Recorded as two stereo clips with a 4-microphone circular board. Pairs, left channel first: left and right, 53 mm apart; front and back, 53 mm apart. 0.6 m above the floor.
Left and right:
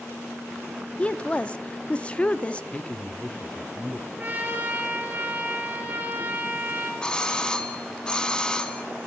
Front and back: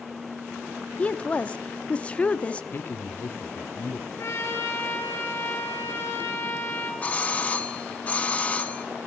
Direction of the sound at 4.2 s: 30° right.